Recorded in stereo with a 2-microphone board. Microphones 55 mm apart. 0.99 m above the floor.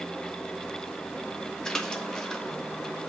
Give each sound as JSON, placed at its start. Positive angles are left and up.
{"t": 1.6, "sound": "a splash", "side_deg": 10, "distance_m": 1.1}